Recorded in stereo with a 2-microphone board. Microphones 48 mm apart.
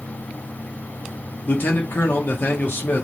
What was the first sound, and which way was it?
A man speaking, 45° left (ahead or behind).